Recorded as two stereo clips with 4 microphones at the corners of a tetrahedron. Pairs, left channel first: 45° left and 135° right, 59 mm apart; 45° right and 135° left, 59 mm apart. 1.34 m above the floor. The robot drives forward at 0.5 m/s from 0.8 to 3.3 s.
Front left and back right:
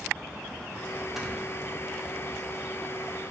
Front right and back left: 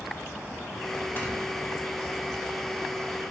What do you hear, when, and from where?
1.2 s snoring: 55° right, 0.7 m; by 1.3 s 65° right, 0.7 m